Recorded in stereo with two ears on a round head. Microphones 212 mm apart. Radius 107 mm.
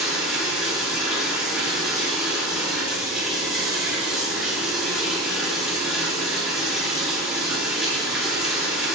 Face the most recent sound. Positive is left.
turn(degrees=-5)  # may be behind; listen again after turning